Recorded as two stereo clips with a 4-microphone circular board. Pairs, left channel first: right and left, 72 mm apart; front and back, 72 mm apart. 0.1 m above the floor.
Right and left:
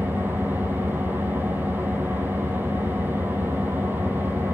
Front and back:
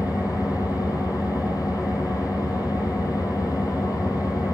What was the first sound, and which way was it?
An engine running, 30° left.